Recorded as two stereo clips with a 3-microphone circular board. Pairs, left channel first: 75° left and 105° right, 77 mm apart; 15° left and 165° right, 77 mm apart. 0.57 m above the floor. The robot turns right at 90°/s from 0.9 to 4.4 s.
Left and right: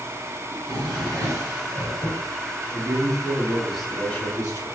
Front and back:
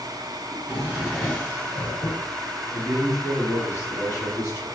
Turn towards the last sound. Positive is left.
turn(degrees=45)